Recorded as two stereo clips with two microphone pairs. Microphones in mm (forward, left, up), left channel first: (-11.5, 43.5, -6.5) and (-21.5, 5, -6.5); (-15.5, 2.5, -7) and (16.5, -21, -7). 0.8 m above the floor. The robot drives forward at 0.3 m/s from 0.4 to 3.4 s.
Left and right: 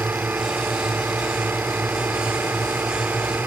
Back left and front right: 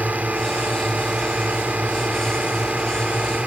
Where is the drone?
85° right; by 3.5 s 90° right.